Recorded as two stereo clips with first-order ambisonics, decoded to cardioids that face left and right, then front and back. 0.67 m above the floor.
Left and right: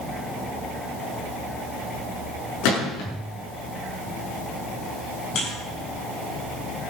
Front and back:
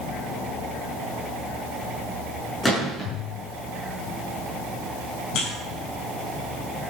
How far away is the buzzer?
About 6.5 m.